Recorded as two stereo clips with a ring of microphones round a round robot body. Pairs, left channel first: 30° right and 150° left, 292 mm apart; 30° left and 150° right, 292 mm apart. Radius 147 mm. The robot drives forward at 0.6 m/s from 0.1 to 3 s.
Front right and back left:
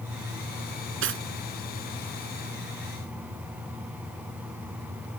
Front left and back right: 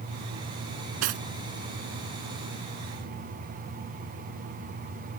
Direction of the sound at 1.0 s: 160° right.